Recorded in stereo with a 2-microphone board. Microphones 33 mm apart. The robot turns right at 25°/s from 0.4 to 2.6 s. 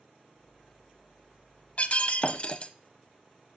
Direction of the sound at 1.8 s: 45° left (ahead or behind).